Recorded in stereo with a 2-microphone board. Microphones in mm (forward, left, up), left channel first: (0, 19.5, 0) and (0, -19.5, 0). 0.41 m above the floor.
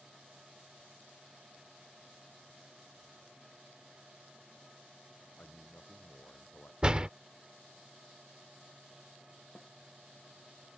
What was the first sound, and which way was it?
A man speaking, 45° left (ahead or behind).